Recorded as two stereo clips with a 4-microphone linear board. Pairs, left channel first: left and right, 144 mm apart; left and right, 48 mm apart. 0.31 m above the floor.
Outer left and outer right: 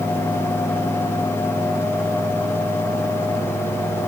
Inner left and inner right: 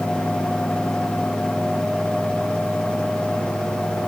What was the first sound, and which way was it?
Only background noise.